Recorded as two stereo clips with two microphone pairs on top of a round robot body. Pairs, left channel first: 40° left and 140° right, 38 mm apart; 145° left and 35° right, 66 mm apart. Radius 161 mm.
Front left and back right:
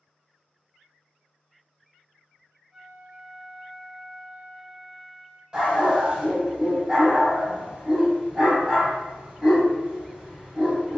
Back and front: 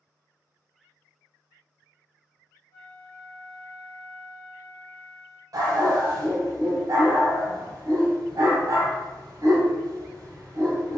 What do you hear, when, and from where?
2.7 s a flute: 145° left, 1.6 m
5.5 s a dog barking: 70° right, 1.0 m